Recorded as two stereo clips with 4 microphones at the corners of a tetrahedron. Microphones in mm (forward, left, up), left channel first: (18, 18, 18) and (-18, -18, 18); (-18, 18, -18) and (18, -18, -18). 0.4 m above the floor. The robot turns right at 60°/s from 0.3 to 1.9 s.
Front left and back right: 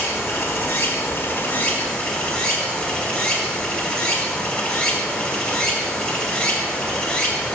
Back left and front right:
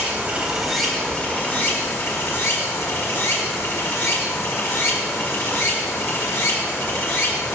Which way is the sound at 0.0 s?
20° left.